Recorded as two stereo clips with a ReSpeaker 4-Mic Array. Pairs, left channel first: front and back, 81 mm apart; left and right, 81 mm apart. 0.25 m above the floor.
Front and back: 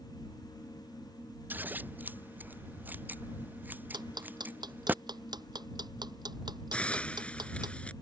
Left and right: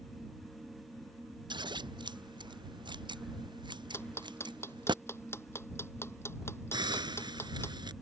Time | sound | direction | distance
1.5 | scissors | 110° right | ?
3.9 | ticking | 150° left | ?
6.7 | a hiss | 75° right | ?